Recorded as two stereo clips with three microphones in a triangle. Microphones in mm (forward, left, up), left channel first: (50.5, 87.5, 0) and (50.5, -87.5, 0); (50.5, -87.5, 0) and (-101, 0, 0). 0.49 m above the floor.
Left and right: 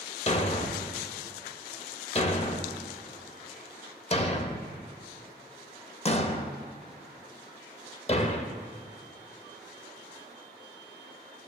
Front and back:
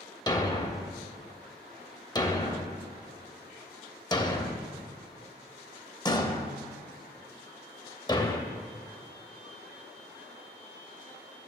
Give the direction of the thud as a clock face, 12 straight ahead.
11 o'clock.